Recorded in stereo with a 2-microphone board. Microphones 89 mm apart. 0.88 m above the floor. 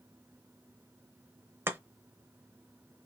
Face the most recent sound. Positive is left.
turn(degrees=-30)  # may be behind; listen again after turning